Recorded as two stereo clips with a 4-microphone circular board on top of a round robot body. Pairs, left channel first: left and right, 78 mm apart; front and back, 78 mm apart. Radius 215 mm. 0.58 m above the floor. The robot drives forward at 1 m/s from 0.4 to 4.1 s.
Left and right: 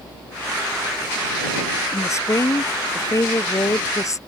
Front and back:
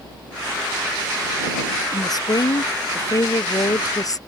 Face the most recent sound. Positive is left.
turn(degrees=40)